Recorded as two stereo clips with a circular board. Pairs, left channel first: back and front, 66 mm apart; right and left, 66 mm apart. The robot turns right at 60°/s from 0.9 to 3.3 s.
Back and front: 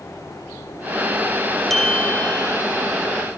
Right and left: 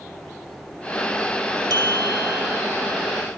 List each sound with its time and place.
1.7 s a bell: 95° left; by 2.6 s 150° left